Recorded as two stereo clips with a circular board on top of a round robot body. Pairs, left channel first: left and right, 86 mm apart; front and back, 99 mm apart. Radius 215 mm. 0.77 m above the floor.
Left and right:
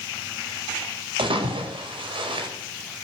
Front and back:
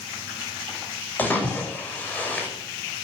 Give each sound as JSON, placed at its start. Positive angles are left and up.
{"t": 1.2, "sound": "a splash", "azimuth_deg": -75, "distance_m": 5.0}